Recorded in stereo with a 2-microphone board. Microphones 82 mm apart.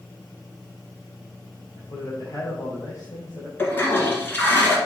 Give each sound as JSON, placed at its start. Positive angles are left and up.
{"t": 1.8, "sound": "a man speaking", "side_deg": 45, "distance_m": 4.0}
{"t": 3.6, "sound": "a toilet flushing", "side_deg": 25, "distance_m": 1.7}